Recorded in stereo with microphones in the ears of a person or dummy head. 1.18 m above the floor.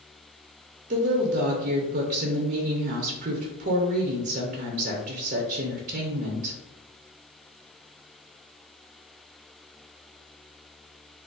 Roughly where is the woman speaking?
Right.